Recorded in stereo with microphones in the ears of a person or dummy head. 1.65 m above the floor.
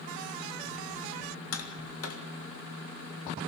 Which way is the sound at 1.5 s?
80° left.